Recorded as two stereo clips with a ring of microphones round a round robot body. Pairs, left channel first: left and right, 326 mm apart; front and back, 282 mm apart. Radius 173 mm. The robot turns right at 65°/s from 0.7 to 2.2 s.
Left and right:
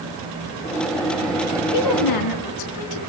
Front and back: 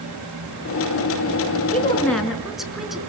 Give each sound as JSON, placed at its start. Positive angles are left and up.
{"t": 1.7, "sound": "a woman speaking", "azimuth_deg": 60, "distance_m": 5.0}